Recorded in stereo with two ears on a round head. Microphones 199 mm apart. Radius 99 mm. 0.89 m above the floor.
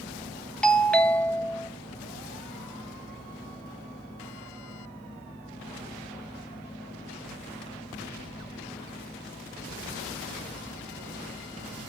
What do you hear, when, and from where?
0.6 s a doorbell: 5° left (ahead or behind), 0.9 m